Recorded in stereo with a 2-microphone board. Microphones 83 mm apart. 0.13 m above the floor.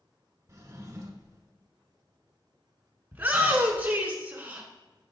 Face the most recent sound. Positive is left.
turn(degrees=-20)  # may be behind; listen again after turning